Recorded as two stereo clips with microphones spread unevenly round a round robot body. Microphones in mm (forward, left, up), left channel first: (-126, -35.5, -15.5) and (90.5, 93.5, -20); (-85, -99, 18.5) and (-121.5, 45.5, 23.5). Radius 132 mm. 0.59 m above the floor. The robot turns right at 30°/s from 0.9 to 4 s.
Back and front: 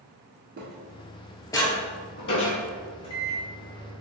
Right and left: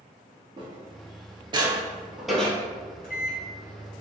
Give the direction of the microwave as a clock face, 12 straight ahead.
3 o'clock.